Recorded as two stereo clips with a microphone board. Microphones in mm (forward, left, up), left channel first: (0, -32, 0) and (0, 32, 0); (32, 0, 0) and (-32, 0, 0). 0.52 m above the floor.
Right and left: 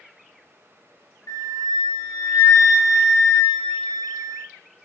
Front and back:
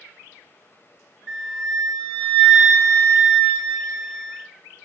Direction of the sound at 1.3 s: 85° right.